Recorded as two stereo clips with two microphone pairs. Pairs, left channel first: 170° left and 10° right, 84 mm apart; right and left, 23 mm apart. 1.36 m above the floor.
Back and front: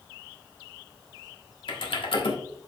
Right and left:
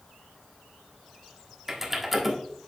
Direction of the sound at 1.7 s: 170° left.